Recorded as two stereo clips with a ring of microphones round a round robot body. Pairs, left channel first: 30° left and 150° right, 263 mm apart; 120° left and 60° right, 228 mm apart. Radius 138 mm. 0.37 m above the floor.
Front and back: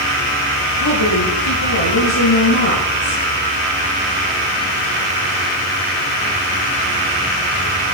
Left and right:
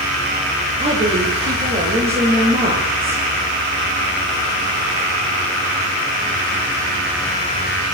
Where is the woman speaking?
5° left, 10 m.